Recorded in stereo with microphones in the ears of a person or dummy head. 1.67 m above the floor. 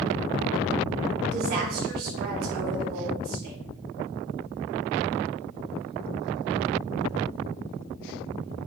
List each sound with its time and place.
1.3 s a woman speaking: 50° right (ahead or behind), 3.5 m